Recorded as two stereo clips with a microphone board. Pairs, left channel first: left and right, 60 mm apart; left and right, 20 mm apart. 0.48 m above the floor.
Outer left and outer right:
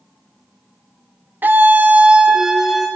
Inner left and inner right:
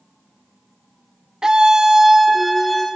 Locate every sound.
1.4 s a scream: 35° right (ahead or behind), 0.9 m; by 2.9 s 5° right (ahead or behind), 1.4 m